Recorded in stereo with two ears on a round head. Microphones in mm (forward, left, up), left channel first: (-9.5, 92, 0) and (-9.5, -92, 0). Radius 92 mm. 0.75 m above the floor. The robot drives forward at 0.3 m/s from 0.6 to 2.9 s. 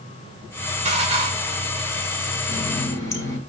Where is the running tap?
15° left (ahead or behind), 2.5 m.